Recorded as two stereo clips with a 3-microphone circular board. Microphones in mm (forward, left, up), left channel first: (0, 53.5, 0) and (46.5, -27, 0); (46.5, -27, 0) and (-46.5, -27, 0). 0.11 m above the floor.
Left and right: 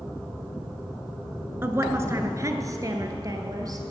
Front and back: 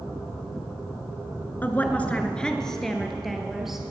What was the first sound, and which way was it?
A woman speaking, 40° right.